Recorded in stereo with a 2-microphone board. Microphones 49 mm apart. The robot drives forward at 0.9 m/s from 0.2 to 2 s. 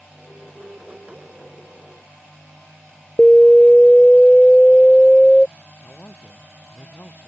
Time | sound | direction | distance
3.2 | an alarm | 15° left (ahead or behind) | ?
5.8 | a man speaking | 40° left (ahead or behind) | ?